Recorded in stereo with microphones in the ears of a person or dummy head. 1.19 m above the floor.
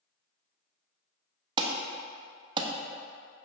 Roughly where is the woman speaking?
I don't hear a woman speaking.